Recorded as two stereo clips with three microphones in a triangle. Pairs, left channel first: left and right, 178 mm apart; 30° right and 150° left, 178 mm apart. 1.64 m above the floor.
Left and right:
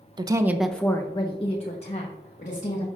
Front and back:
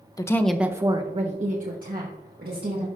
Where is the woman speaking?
70° right, 0.6 m; by 2.9 s 130° left, 1.6 m.